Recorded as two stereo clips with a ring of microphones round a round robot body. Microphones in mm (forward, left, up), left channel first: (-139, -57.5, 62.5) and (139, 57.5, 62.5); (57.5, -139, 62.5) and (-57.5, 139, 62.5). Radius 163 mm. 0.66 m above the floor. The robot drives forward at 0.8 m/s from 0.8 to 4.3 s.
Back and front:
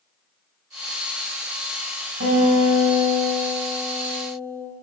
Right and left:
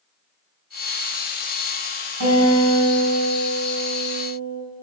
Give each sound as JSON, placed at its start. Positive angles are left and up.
{"t": 2.2, "sound": "a guitar", "azimuth_deg": 80, "distance_m": 6.5}